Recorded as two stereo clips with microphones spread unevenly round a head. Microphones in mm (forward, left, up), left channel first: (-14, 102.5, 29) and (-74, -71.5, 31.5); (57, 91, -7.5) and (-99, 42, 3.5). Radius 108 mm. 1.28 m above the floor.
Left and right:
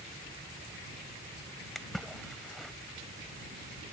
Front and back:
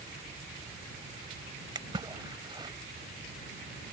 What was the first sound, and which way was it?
A splash, 160° left.